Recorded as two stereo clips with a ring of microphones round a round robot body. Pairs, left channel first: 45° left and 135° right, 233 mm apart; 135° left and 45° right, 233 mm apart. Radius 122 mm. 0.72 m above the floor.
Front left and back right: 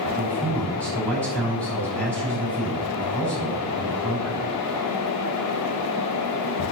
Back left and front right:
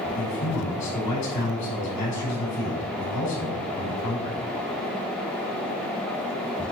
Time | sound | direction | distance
0.1 | a man speaking | 130° left | 6 m